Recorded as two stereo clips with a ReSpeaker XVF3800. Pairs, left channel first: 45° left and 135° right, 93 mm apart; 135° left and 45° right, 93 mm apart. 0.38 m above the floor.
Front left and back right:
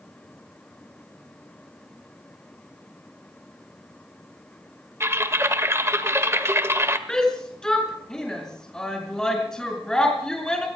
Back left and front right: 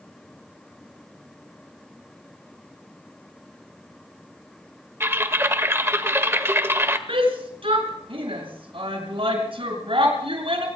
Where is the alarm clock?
No alarm clock in this recording.